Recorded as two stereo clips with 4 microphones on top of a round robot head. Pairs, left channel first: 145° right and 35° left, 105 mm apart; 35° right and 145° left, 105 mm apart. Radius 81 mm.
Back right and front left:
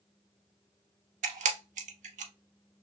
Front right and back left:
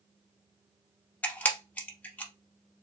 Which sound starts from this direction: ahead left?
A camera shutter, at 1.2 s.